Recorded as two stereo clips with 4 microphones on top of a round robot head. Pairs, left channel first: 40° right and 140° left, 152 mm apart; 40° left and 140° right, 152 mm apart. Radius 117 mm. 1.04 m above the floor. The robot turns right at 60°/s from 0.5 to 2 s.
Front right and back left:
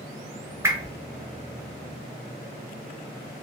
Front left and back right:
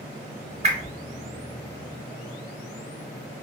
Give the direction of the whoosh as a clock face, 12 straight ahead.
5 o'clock.